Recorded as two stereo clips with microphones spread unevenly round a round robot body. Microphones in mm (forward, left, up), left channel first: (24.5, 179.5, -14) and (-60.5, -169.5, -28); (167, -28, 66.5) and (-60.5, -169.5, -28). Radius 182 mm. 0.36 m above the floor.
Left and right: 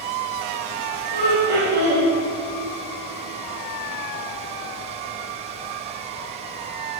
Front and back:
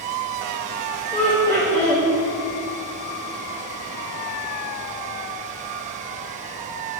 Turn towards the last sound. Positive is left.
turn(degrees=-90)